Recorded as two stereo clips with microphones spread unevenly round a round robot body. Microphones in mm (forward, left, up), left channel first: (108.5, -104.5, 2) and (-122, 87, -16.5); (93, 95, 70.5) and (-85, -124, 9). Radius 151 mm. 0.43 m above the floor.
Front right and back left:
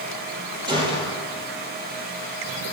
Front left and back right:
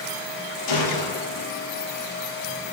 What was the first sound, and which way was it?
A gunshot, 65° left.